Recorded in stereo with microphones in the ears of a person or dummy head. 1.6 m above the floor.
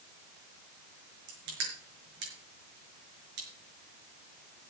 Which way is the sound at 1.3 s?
65° right (ahead or behind).